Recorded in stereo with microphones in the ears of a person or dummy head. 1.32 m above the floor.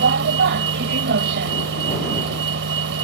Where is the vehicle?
60° right (ahead or behind).